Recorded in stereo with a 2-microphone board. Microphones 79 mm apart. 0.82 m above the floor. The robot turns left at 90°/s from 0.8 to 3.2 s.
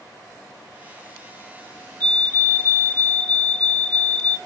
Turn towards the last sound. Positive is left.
turn(degrees=20)  # may be behind; listen again after turning